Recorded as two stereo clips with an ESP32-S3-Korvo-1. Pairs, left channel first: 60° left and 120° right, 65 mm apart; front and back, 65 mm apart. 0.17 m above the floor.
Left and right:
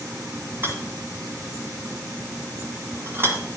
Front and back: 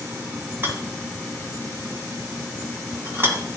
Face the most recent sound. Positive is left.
turn(degrees=-145)